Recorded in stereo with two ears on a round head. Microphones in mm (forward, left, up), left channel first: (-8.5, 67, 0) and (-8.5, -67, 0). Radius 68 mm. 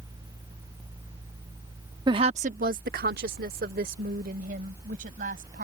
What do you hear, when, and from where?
2.1 s a woman speaking: 30° right (ahead or behind); by 5.6 s 60° right (ahead or behind)